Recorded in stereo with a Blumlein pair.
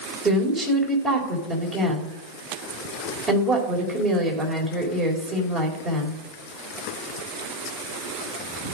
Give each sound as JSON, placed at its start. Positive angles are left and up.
{"t": 0.2, "sound": "a woman speaking", "azimuth_deg": -25, "distance_m": 4.0}